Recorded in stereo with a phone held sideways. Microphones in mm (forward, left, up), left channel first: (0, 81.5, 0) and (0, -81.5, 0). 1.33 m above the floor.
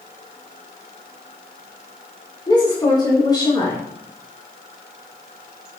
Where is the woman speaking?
25° left (ahead or behind), 4 m.